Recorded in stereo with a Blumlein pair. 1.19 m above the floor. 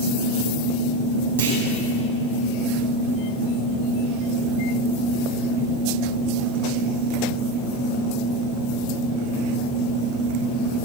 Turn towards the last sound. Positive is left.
turn(degrees=-70)